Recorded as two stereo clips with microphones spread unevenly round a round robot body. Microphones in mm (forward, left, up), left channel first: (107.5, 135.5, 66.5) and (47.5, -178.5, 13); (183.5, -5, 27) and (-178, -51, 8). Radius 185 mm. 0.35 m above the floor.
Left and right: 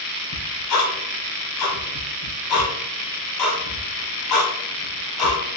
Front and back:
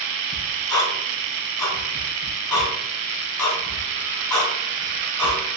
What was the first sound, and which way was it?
Ticking, 90° left.